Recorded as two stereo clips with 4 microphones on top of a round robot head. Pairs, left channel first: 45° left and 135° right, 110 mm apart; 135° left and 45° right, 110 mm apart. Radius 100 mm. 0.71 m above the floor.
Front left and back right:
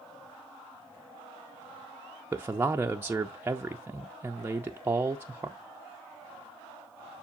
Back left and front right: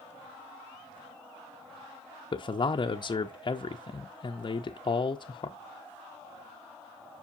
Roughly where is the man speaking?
Behind.